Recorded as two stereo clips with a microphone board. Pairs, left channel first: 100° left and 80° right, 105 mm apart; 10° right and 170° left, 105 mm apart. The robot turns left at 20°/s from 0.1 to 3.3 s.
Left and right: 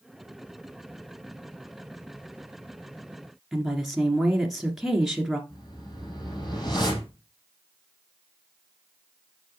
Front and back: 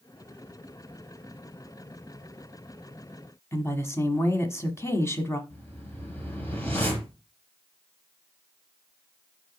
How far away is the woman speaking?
About 1.3 m.